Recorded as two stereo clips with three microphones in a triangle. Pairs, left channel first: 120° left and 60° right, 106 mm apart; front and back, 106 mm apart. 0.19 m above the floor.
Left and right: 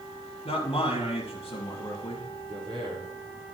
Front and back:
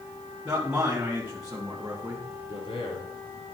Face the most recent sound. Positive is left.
turn(degrees=-20)